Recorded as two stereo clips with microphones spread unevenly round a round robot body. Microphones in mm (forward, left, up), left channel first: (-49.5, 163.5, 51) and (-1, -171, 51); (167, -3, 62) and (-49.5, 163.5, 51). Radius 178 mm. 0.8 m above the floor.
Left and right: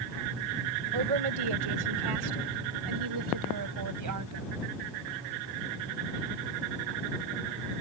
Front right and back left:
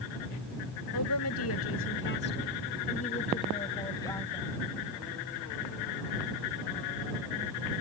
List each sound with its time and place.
0.9 s a woman speaking: 80° right; by 4.5 s 120° right